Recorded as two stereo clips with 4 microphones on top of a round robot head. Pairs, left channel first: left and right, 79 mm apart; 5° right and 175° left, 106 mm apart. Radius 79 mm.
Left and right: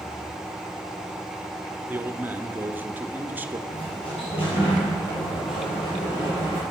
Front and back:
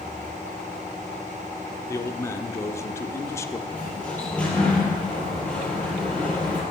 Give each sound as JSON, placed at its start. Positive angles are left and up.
{"t": 1.9, "sound": "a man speaking", "azimuth_deg": -40, "distance_m": 0.9}
{"t": 3.7, "sound": "a sliding door", "azimuth_deg": 75, "distance_m": 5.0}